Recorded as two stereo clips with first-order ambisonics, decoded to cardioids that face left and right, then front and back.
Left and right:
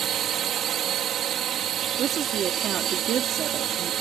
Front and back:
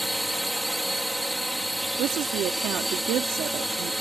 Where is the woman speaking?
140° right.